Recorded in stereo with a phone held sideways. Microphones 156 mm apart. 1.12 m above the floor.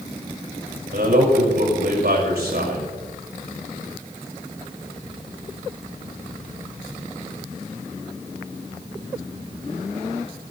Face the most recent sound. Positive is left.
turn(degrees=-80)